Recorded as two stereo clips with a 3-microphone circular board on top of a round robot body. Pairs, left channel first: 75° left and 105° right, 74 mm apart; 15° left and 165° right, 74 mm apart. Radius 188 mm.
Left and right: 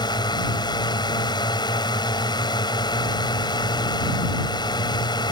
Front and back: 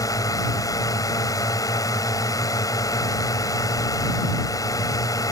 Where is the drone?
55° left.